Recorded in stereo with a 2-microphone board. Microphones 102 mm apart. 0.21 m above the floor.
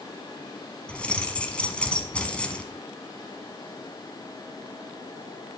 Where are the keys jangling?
10° left (ahead or behind), 1.1 m.